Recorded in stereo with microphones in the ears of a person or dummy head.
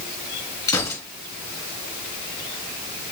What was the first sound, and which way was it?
A gunshot, 20° left (ahead or behind).